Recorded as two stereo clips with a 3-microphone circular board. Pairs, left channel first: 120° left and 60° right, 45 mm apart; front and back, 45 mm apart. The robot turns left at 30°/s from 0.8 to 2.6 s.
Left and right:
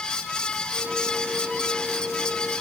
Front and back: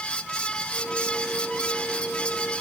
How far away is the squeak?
I don't hear a squeak.